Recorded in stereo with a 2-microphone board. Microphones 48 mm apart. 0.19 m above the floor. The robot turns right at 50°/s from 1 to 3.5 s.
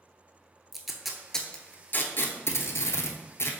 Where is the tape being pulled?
5° right (ahead or behind), 0.7 m; by 3.6 s 60° left (ahead or behind), 0.7 m.